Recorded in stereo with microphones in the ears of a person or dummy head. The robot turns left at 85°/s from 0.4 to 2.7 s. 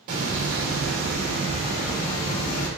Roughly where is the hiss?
Ahead right.